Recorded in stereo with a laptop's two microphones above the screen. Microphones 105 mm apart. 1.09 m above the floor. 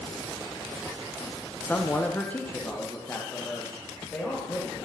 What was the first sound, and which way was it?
A man speaking, 15° left (ahead or behind).